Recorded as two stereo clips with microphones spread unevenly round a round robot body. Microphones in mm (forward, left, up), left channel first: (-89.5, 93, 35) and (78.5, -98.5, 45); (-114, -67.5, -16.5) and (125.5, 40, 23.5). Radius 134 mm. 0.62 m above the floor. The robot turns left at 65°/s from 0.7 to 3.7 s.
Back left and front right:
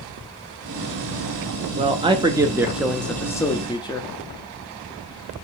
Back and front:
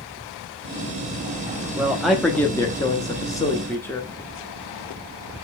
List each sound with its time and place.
1.8 s a man speaking: 70° right, 0.7 m; by 4.1 s 165° left, 0.7 m